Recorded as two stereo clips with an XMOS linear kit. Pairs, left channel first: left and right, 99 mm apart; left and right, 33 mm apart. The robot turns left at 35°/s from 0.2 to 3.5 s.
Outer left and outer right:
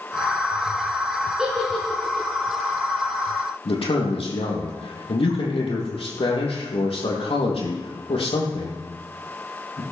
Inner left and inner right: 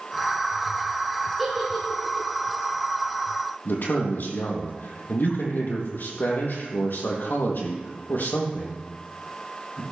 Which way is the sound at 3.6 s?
70° left (ahead or behind).